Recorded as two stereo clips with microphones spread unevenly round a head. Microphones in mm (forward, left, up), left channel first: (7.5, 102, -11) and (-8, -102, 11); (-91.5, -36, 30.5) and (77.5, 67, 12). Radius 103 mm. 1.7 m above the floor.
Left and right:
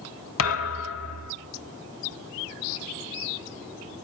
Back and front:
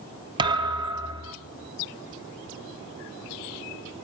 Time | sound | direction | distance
0.4 | a thud | 100° left | 2 m